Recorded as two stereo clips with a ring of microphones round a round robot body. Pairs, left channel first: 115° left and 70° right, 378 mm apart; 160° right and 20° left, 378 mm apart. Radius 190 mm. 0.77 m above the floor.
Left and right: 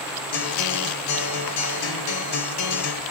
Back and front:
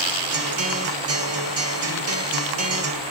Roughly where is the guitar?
Left.